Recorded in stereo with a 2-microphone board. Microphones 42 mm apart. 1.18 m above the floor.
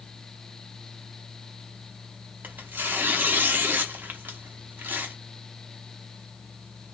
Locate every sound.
2.4 s tearing paper: 50° right (ahead or behind), 0.6 m